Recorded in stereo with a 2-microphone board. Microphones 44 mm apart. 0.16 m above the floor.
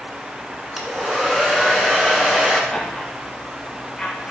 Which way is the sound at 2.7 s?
15° left (ahead or behind).